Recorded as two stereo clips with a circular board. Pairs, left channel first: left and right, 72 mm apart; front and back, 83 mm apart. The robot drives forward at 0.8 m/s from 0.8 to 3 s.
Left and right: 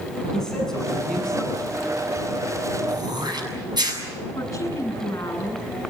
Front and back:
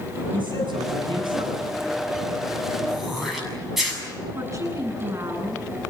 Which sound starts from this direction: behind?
A man speaking, at 0.3 s.